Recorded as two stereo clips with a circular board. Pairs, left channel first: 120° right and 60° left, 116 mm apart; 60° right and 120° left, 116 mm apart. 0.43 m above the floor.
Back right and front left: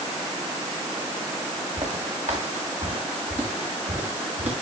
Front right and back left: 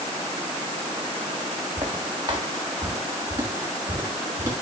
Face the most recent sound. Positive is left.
turn(degrees=55)